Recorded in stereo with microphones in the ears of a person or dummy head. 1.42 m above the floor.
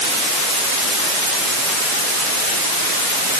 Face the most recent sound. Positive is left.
No sound to turn to.